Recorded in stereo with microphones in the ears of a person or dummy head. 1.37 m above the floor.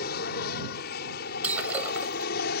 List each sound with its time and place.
0.0 s an aircraft: 55° left (ahead or behind)
1.4 s breaking glass: 10° right (ahead or behind)